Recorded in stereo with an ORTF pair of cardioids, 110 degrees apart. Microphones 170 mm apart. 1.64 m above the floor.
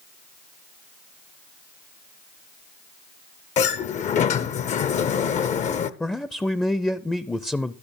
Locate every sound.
3.6 s a sliding door: 45° left, 0.7 m
6.0 s a man speaking: 5° left, 0.5 m